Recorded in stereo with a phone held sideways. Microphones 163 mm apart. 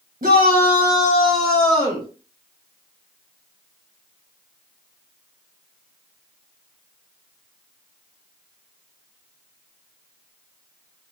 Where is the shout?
50° right (ahead or behind), 0.9 m; by 2.1 s 30° left (ahead or behind), 0.8 m.